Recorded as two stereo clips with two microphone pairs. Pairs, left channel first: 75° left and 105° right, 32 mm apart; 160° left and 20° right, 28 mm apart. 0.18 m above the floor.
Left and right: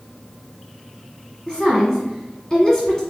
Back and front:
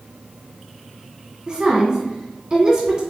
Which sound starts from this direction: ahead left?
A woman speaking, at 1.5 s.